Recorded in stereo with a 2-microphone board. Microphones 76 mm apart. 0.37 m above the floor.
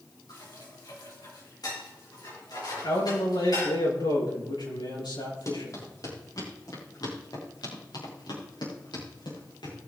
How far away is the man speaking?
About 5.5 m.